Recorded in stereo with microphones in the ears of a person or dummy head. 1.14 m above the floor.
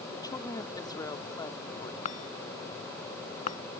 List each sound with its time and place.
0.1 s a woman speaking: 25° left (ahead or behind)
2.0 s a chime: 50° left (ahead or behind)